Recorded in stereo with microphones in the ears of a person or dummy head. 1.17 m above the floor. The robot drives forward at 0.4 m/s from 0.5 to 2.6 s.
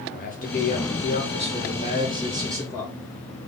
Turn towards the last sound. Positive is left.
turn(degrees=25)  # may be behind; listen again after turning